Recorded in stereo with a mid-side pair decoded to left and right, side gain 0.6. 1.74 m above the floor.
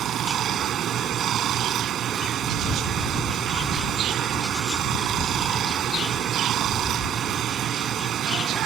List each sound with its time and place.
0.0 s running water: 50° right